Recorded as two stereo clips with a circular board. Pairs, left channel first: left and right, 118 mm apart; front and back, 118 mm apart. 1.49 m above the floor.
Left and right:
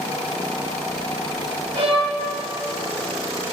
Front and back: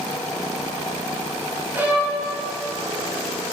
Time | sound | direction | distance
1.8 | a violin | 110° right | 2.5 m